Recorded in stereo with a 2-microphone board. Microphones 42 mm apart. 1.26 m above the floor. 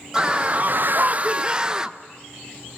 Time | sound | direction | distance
0.1 | a scream | 15° right (ahead or behind) | 1.0 m